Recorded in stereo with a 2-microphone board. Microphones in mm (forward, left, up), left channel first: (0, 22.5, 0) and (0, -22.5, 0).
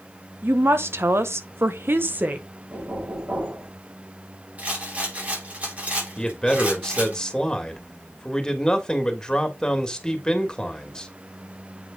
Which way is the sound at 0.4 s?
60° right (ahead or behind).